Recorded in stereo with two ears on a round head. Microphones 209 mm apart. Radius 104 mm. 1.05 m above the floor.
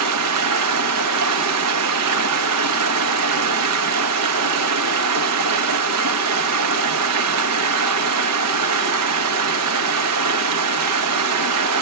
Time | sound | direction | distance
0.0 | running water | 80° right | 0.9 m